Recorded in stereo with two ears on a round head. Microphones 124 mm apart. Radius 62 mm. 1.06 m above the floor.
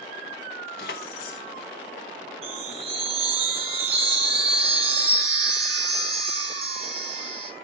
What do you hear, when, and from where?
0.8 s keys jangling: 75° left (ahead or behind), 1.1 m
2.4 s a chime: 45° right (ahead or behind), 3 m